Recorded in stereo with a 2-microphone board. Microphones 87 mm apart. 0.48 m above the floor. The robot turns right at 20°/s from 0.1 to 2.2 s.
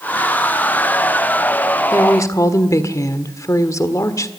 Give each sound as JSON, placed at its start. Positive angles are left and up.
{"t": 1.9, "sound": "a woman speaking", "side_deg": 35, "distance_m": 1.5}